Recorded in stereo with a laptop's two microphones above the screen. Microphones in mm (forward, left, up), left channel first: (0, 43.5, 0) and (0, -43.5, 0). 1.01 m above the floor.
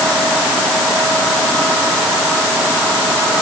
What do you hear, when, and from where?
Only background noise.